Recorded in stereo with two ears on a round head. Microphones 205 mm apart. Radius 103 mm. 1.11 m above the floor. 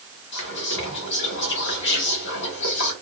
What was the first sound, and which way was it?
Whispering, 50° left (ahead or behind).